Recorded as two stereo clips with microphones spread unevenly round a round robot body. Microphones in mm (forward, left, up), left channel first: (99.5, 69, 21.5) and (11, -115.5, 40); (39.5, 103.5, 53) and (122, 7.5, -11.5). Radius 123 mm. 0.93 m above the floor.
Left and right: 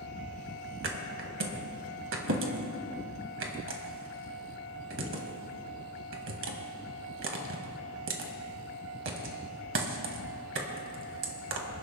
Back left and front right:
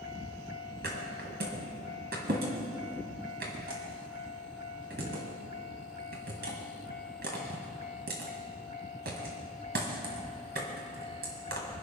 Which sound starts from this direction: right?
A thud, at 0.8 s.